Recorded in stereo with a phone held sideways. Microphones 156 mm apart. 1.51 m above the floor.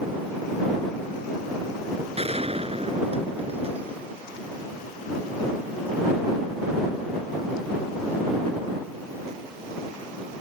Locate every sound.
2.2 s a gunshot: 40° right (ahead or behind)